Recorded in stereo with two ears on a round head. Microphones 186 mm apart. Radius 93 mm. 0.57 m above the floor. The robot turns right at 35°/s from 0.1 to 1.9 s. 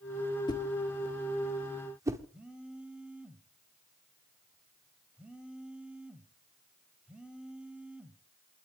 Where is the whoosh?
20° left (ahead or behind), 1.7 m; by 2.2 s 15° right (ahead or behind), 1.7 m.